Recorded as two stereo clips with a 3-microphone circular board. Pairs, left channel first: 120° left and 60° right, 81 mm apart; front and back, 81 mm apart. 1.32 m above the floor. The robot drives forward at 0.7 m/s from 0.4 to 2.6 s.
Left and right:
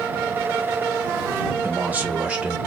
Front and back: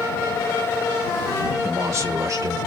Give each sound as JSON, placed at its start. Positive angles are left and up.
{"t": 1.6, "sound": "a man speaking", "azimuth_deg": -125, "distance_m": 1.7}